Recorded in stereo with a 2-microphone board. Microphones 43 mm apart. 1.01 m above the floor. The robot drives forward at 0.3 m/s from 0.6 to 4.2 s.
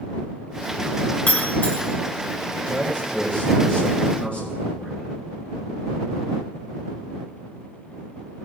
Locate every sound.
1.3 s breaking glass: 35° left (ahead or behind), 1.3 m
2.7 s a man speaking: 30° left (ahead or behind), 4 m